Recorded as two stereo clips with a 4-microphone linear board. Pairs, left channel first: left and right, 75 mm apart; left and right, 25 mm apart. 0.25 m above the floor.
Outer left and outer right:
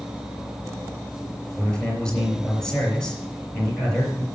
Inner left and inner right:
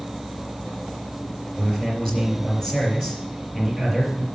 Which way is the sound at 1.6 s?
15° left (ahead or behind).